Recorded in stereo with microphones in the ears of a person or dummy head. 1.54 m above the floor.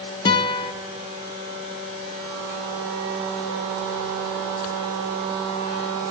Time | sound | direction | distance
0.2 | a guitar | 25° left (ahead or behind) | 0.7 m